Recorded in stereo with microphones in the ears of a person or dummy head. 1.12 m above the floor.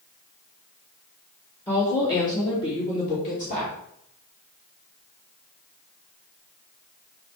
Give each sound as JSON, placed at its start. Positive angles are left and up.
{"t": 1.7, "sound": "a woman speaking", "side_deg": 15, "distance_m": 2.5}